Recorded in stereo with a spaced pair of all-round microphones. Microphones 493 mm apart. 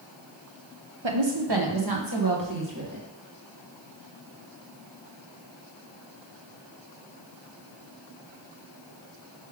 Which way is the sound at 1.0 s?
65° right (ahead or behind).